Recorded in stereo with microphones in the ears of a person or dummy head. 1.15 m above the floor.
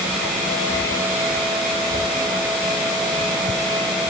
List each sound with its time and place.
Only background noise.